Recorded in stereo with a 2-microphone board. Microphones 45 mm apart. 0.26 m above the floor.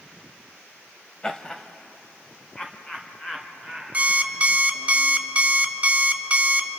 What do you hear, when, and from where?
1.2 s laughter: 20° left (ahead or behind), 0.9 m; by 4.9 s 10° left (ahead or behind), 4 m
3.9 s an alarm clock: 30° right (ahead or behind), 0.8 m